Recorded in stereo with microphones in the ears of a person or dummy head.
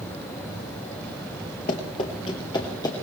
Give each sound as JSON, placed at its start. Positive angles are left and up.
{"t": 1.7, "sound": "running footsteps", "side_deg": 20, "distance_m": 1.5}